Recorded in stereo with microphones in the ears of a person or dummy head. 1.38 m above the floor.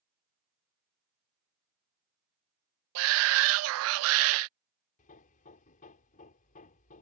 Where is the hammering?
40° left (ahead or behind).